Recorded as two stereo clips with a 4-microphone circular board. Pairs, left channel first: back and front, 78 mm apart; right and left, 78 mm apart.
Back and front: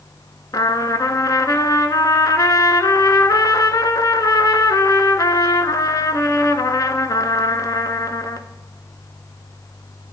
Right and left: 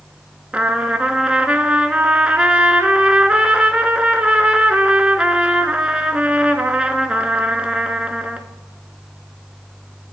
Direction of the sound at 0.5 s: 160° left.